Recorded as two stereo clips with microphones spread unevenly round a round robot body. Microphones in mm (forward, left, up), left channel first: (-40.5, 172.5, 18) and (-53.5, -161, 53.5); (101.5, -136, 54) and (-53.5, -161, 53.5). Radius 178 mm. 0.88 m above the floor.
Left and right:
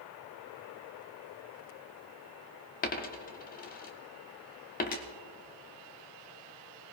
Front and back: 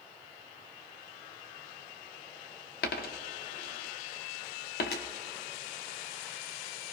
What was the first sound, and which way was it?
A dropped coin, 20° left.